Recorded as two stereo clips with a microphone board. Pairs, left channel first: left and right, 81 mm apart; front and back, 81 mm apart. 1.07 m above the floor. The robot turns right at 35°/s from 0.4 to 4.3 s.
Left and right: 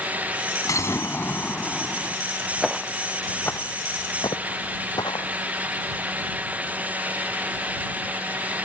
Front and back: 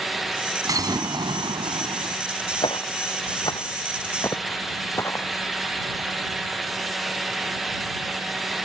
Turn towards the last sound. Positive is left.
turn(degrees=60)